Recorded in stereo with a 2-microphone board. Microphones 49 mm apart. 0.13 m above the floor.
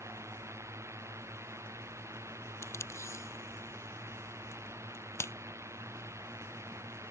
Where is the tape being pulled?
80° left.